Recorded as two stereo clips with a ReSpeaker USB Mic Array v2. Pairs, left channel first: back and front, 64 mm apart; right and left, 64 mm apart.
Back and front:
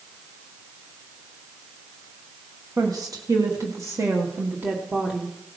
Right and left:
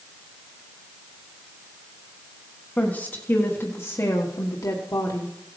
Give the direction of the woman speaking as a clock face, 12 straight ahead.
1 o'clock.